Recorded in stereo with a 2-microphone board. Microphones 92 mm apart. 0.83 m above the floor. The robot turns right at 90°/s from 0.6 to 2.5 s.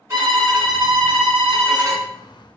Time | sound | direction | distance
0.1 | a violin | 155° right | 1.5 m